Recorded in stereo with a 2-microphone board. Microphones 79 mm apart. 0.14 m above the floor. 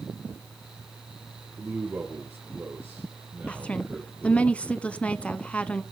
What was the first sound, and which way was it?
A man speaking, 30° right (ahead or behind).